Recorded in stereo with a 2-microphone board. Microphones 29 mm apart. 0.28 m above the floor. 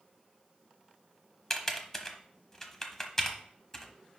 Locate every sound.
1.5 s typing on a keyboard: 15° left (ahead or behind), 1.1 m